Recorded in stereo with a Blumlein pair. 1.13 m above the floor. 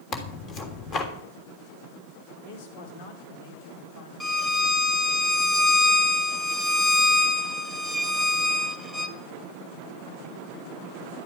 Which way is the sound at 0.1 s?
25° left.